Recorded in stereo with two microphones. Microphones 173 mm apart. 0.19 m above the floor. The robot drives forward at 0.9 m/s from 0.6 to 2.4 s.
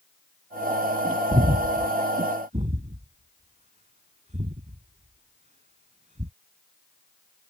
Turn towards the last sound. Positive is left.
turn(degrees=-45)  # may be behind; listen again after turning